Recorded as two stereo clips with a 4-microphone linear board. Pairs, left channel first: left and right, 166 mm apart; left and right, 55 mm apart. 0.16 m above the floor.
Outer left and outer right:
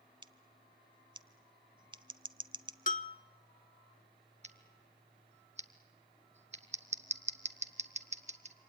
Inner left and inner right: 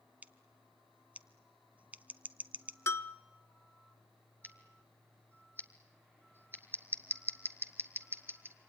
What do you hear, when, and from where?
0.2 s scissors: 30° right (ahead or behind), 0.7 m
2.9 s a bell: 55° left (ahead or behind), 0.5 m
4.4 s scissors: 45° right (ahead or behind), 1.2 m